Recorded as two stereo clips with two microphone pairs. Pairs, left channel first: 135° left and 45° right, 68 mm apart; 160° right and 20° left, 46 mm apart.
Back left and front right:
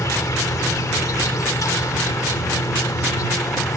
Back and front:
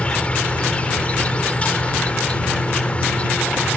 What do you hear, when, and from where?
0.0 s an insect: 145° left